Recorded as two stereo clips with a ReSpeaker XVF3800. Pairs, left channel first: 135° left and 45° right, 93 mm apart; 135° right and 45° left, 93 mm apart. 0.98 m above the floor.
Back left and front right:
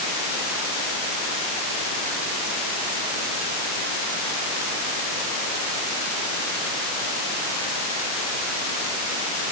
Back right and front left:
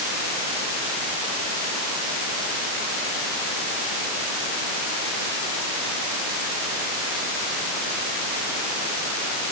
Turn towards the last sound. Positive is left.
No sound to turn to.